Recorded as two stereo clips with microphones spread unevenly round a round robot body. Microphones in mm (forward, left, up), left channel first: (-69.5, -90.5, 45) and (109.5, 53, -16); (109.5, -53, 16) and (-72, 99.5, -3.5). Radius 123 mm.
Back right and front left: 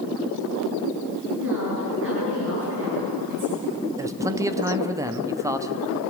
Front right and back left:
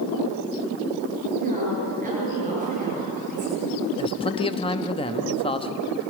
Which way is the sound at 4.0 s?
15° left.